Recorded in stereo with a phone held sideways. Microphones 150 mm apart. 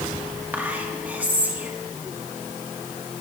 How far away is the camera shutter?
No camera shutter in this recording.